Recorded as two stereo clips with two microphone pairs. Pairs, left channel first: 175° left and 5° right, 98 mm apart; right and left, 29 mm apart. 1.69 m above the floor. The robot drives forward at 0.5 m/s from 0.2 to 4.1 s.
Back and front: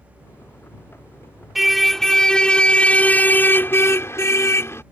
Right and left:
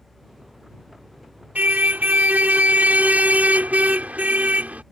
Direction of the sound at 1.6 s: 85° left.